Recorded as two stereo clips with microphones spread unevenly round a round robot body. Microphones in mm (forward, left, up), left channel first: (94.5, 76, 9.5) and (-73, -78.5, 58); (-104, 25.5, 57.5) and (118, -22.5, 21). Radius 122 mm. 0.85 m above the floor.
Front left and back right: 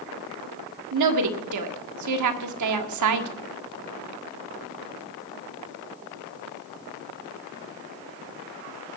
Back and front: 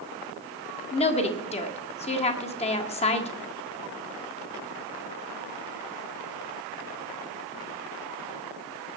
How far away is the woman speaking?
About 1.8 m.